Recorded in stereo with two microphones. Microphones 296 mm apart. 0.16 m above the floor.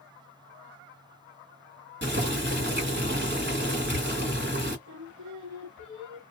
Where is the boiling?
40° right (ahead or behind), 1.3 m.